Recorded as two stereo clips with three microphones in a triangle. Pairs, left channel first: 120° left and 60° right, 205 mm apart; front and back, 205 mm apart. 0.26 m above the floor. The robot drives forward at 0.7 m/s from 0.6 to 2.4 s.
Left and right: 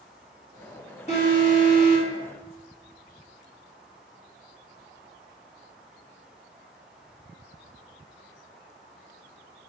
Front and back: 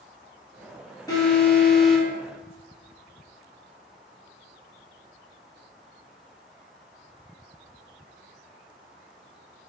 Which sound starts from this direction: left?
An alarm, at 1.1 s.